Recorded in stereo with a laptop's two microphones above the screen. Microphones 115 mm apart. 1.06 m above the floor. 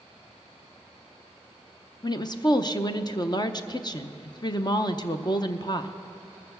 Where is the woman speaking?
35° left (ahead or behind), 0.7 m.